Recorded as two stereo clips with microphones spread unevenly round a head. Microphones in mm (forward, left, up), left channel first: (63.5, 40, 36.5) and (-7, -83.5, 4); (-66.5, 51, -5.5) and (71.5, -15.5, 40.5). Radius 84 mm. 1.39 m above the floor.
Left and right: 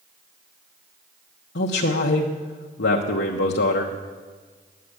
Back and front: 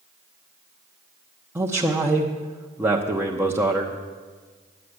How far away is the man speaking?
About 1.0 m.